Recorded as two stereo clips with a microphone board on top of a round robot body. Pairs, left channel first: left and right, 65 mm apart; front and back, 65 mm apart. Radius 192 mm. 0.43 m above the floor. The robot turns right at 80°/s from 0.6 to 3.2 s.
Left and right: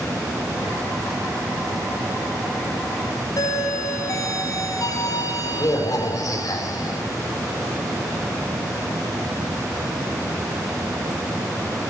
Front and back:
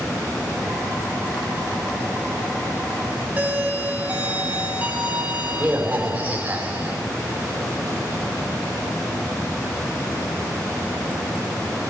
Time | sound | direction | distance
3.4 | a doorbell | 115° left | 4 m